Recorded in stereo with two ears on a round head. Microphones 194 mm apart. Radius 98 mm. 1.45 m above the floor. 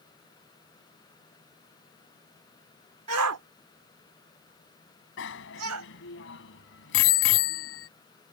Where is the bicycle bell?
55° left (ahead or behind).